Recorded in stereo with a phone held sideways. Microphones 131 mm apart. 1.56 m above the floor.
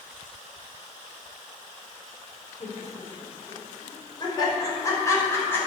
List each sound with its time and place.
2.6 s laughter: 55° left (ahead or behind), 5.5 m; by 5.6 s 15° left (ahead or behind), 6.5 m